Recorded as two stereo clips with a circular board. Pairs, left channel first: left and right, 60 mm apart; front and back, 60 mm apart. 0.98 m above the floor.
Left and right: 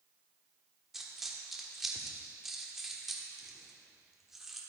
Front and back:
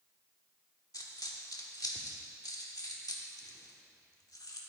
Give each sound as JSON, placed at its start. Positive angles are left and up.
{"t": 0.9, "sound": "a dropped coin", "azimuth_deg": -5, "distance_m": 1.2}